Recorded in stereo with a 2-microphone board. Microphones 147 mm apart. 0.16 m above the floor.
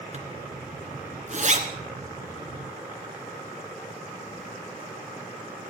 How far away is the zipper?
About 2 m.